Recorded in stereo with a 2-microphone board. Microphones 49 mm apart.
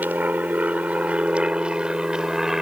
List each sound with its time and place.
0.0 s an aircraft: 35° right (ahead or behind); by 2.6 s 5° right (ahead or behind)